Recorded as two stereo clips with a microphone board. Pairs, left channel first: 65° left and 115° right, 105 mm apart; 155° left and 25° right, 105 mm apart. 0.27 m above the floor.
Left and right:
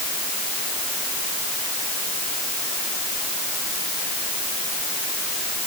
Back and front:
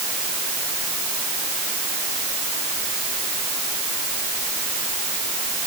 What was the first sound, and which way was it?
Only background noise.